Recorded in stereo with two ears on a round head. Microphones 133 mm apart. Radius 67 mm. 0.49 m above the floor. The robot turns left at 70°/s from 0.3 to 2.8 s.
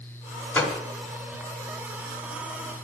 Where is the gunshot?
15° left (ahead or behind), 1.3 m; by 0.8 s centre (ahead or behind), 1.3 m.